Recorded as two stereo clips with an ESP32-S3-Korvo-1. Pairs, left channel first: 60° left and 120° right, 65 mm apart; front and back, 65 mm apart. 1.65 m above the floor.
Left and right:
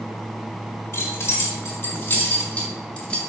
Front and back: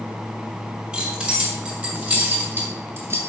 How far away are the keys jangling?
About 3 m.